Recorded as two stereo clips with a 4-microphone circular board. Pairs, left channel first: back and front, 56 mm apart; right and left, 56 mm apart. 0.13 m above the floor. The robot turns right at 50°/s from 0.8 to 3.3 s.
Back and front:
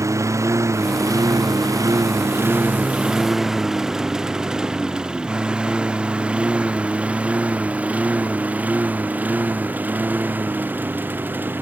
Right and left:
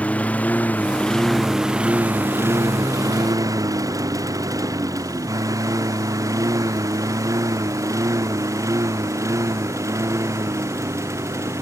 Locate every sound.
0.0 s a lawn mower: 25° right; by 11.6 s 60° left